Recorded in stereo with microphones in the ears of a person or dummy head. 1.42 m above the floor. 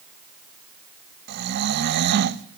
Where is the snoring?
55° right (ahead or behind), 1.1 m.